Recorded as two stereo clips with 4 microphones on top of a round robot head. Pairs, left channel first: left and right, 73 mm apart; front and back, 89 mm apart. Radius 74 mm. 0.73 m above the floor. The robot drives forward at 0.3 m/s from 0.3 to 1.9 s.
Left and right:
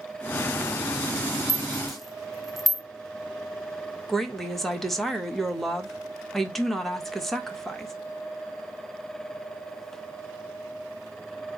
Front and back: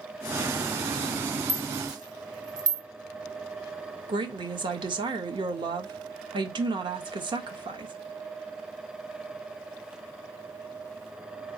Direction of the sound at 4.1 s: 175° left.